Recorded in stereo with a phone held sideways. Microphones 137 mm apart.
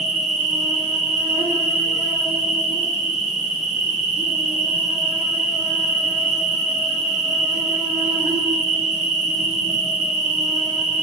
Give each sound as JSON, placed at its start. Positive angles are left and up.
{"t": 0.0, "sound": "an insect", "side_deg": -60, "distance_m": 1.2}